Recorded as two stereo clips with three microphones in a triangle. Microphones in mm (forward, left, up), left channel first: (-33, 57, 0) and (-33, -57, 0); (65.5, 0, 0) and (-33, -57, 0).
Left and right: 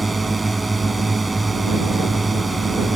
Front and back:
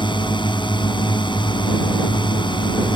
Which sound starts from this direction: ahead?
A drone, at 0.0 s.